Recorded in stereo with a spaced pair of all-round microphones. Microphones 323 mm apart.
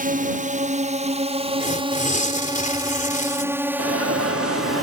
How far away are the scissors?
I don't hear scissors.